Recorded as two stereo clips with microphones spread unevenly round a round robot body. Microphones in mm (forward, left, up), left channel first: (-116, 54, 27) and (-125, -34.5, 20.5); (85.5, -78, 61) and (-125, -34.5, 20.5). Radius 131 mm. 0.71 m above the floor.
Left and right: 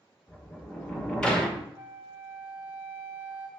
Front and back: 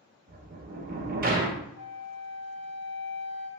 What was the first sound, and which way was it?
A sliding door, 170° left.